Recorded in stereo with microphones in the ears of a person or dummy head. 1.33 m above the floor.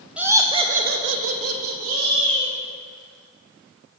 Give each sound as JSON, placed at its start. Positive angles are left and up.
{"t": 0.2, "sound": "laughter", "side_deg": -5, "distance_m": 0.9}